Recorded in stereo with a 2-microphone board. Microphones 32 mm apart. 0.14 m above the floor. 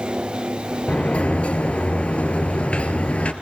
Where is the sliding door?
45° left (ahead or behind), 2 m.